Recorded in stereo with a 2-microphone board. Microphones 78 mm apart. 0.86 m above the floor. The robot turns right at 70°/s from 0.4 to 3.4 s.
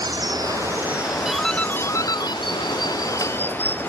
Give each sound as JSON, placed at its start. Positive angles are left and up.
{"t": 0.0, "sound": "running water", "azimuth_deg": -55}
{"t": 1.2, "sound": "a doorbell", "side_deg": -10}